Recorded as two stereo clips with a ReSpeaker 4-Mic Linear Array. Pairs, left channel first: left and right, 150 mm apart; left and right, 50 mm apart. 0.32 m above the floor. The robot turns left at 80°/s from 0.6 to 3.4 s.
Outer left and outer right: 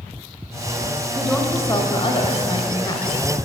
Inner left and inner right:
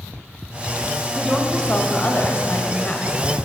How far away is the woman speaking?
About 1.2 m.